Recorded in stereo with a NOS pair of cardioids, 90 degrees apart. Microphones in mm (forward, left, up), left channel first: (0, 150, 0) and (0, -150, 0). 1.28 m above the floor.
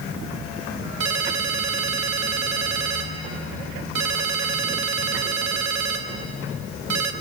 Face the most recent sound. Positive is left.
turn(degrees=-65)